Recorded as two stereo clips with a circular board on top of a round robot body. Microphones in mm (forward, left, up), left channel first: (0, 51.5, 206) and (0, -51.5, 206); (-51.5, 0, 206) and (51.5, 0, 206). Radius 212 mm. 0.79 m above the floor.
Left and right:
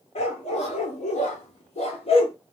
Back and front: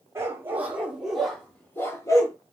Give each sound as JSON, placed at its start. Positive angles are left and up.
{"t": 0.1, "sound": "a dog barking", "azimuth_deg": 65, "distance_m": 1.3}